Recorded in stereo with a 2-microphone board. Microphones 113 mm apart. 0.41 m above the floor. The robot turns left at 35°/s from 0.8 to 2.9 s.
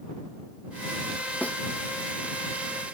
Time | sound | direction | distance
1.4 | a snare drum | 15° left (ahead or behind) | ?